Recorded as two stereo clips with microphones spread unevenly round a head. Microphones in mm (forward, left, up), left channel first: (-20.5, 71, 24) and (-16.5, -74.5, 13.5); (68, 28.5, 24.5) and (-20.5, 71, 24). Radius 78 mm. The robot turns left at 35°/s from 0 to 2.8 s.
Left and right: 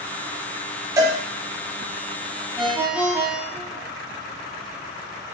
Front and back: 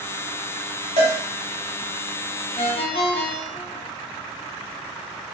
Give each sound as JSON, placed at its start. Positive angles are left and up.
{"t": 1.0, "sound": "a cowbell", "azimuth_deg": -160, "distance_m": 1.0}
{"t": 2.6, "sound": "a ringtone", "azimuth_deg": 0, "distance_m": 0.9}